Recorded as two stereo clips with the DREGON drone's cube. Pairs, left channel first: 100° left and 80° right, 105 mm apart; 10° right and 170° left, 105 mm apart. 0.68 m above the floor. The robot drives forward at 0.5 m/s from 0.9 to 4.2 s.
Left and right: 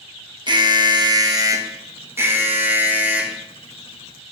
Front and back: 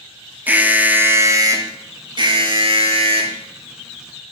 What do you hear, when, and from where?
0.5 s an alarm: 115° right, 0.9 m; by 3.4 s 155° right, 1.8 m